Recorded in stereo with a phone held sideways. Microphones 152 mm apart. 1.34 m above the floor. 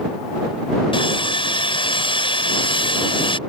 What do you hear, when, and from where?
0.9 s sawing: 35° left (ahead or behind)